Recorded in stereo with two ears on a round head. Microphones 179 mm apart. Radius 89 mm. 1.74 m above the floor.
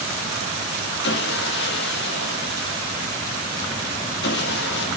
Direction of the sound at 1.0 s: 60° left (ahead or behind).